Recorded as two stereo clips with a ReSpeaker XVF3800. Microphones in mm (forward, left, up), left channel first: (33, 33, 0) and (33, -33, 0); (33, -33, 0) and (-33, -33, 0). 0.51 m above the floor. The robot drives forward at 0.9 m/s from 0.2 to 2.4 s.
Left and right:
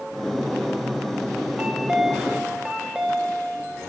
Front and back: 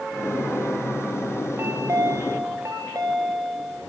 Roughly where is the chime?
Behind.